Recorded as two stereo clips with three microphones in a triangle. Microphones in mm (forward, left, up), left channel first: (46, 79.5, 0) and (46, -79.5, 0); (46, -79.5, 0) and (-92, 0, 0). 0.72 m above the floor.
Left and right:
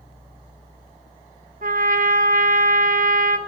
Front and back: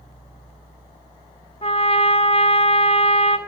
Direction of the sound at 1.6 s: 75° right.